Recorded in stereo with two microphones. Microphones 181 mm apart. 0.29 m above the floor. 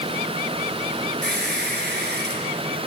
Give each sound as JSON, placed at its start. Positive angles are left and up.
{"t": 1.2, "sound": "a squeak", "side_deg": -70, "distance_m": 3.5}